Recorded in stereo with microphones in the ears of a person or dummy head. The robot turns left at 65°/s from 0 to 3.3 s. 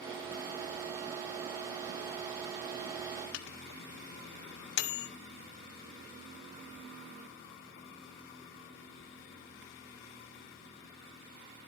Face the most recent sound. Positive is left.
turn(degrees=70)  # may be behind; listen again after turning